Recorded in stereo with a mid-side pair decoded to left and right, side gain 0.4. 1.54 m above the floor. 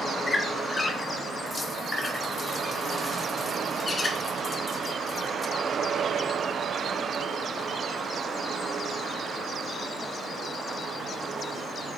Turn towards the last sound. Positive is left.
turn(degrees=40)